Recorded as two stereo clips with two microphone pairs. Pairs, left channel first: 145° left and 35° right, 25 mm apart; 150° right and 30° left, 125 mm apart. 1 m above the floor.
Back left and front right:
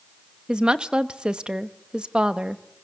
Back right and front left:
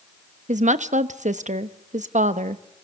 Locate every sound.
0.5 s a woman speaking: 15° left, 0.9 m